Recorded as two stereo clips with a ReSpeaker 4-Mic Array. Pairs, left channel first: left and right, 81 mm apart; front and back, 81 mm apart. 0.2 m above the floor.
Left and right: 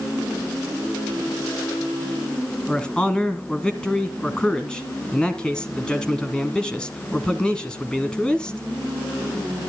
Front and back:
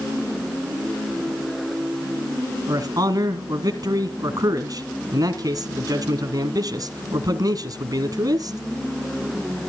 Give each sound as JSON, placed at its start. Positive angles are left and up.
{"t": 2.7, "sound": "a man speaking", "azimuth_deg": 170, "distance_m": 1.6}